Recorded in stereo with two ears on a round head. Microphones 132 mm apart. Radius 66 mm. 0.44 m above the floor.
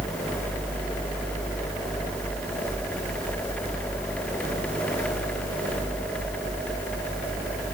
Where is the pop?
No pop in this recording.